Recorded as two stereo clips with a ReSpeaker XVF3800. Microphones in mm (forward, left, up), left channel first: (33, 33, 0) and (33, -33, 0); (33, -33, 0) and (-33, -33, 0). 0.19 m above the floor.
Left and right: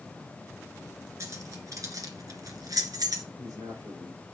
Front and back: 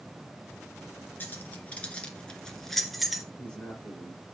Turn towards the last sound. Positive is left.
turn(degrees=-75)